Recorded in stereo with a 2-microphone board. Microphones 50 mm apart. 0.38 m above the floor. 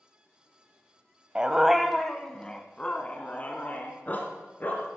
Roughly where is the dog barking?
Centre.